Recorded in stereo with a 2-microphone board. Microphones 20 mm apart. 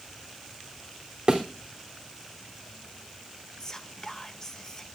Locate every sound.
1.3 s a thud: 35° right (ahead or behind), 3 m
3.6 s whispering: 25° left (ahead or behind), 0.8 m